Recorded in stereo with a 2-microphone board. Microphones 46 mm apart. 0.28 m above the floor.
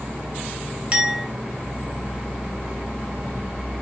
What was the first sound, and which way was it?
A clink, 25° right (ahead or behind).